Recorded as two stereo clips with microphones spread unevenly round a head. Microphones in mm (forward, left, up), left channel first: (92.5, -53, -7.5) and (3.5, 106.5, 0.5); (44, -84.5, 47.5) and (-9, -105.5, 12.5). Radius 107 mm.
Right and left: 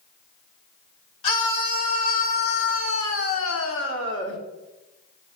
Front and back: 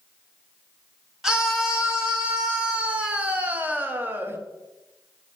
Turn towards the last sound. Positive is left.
turn(degrees=-110)